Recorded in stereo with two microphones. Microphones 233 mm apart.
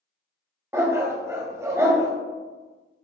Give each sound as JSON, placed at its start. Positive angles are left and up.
{"t": 0.7, "sound": "a dog barking", "side_deg": -10, "distance_m": 0.7}